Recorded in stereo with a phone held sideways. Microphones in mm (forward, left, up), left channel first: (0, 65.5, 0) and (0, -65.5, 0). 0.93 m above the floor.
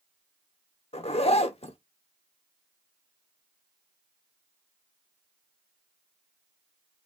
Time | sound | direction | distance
0.9 | a zipper | 50° left (ahead or behind) | 0.7 m